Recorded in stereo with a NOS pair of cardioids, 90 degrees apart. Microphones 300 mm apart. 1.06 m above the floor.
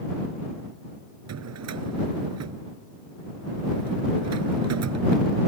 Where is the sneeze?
No sneeze in this recording.